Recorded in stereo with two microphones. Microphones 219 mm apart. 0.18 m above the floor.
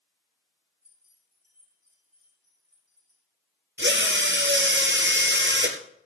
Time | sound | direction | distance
0.8 | keys jangling | 35° left (ahead or behind) | 7.5 m
3.8 | a drill | 55° right (ahead or behind) | 1.7 m